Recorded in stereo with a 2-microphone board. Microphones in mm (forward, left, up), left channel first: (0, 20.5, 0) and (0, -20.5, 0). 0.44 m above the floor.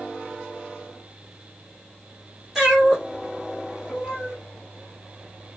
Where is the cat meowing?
5° right (ahead or behind), 2 m.